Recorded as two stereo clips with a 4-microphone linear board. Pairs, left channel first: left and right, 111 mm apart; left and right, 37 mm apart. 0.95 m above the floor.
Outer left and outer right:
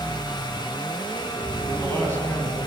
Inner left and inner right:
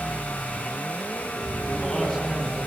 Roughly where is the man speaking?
Centre.